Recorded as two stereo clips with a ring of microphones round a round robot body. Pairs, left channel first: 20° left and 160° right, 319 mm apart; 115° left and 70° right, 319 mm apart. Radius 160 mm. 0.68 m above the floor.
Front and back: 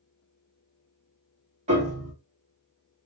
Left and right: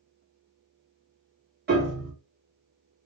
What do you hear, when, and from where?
1.7 s a piano: 100° right, 1.3 m